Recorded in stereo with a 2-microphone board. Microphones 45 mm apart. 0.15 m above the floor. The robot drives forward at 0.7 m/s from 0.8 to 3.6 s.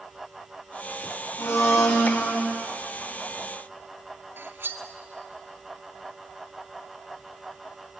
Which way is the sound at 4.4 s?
50° right (ahead or behind).